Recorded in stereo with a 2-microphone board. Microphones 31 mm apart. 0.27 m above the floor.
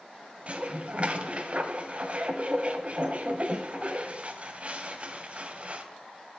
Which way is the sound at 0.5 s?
40° right (ahead or behind).